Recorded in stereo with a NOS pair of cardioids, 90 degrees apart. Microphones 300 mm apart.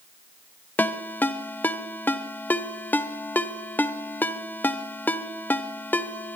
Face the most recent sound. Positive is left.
turn(degrees=5)